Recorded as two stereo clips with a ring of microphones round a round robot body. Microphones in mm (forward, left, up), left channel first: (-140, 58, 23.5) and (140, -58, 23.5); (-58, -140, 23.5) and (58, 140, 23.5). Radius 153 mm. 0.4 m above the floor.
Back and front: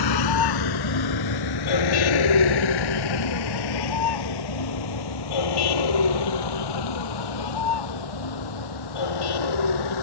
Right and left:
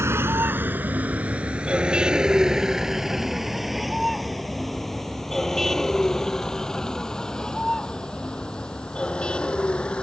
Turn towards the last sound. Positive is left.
turn(degrees=160)